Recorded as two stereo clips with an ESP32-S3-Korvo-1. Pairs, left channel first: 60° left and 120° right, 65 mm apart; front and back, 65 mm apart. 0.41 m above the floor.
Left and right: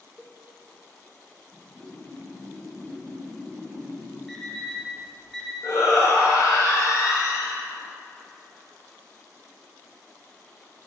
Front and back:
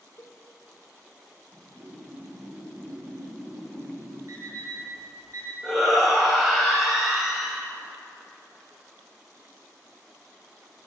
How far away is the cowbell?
About 0.6 m.